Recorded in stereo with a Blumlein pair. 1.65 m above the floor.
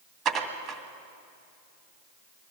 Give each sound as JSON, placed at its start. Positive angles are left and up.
{"t": 0.2, "sound": "dishes clattering", "azimuth_deg": -25, "distance_m": 2.0}